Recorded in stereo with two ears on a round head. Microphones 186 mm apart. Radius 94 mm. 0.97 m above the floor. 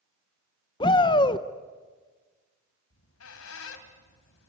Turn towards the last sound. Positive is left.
turn(degrees=80)